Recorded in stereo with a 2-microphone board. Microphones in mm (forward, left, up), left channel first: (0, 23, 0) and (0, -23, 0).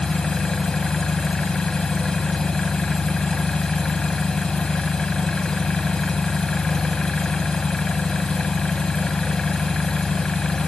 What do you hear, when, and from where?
0.0 s an engine running: 15° left (ahead or behind), 0.9 m